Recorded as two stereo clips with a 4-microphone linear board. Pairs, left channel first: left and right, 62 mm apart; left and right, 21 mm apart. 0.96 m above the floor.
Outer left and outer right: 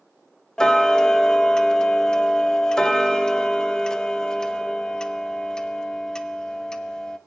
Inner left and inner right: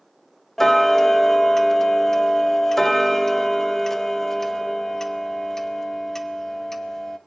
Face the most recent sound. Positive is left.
turn(degrees=15)  # may be behind; listen again after turning